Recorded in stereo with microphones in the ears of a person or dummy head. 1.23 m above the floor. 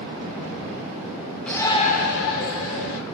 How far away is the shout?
About 0.7 m.